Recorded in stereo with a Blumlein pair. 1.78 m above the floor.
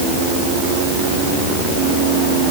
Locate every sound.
Only background noise.